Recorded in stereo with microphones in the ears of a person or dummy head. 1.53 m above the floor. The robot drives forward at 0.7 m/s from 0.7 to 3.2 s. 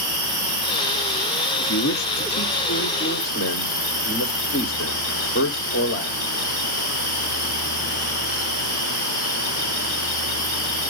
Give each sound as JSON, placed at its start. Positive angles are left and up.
{"t": 0.0, "sound": "an insect", "side_deg": -60, "distance_m": 6.0}
{"t": 1.6, "sound": "a man speaking", "side_deg": 60, "distance_m": 1.0}